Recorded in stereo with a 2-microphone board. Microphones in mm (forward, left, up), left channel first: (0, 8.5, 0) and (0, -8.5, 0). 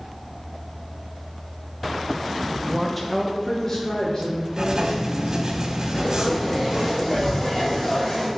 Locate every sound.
2.7 s a woman speaking: 25° right (ahead or behind), 0.7 m; by 5.5 s 45° left (ahead or behind), 4.5 m
4.5 s writing: 35° right (ahead or behind), 1.8 m
5.9 s frying: 35° left (ahead or behind), 3.5 m